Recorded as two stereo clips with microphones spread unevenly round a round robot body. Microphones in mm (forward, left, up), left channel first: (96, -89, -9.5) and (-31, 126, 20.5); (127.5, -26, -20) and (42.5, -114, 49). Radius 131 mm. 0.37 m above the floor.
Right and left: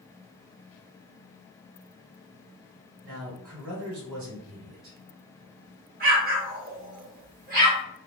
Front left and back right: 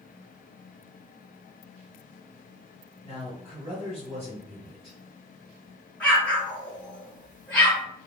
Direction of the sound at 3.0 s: 135° left.